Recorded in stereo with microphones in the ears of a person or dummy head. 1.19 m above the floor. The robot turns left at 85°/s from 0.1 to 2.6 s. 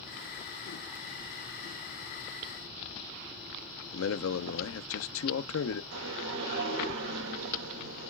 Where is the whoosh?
75° right (ahead or behind), 3 m.